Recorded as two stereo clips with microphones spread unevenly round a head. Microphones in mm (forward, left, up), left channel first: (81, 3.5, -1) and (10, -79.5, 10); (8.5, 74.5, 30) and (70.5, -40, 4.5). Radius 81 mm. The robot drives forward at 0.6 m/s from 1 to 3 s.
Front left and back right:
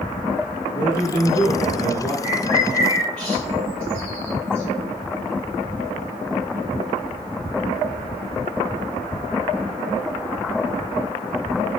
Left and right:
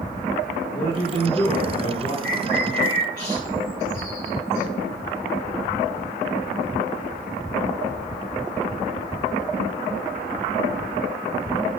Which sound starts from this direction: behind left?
A bird, at 2.2 s.